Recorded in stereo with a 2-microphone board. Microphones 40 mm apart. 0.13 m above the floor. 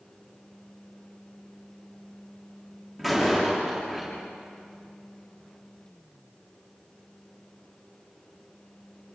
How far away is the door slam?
About 8 m.